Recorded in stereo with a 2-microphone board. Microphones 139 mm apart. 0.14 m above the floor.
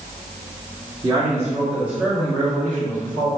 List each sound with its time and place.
1.0 s a man speaking: 25° right (ahead or behind), 1.9 m; by 3.3 s 20° left (ahead or behind), 1.9 m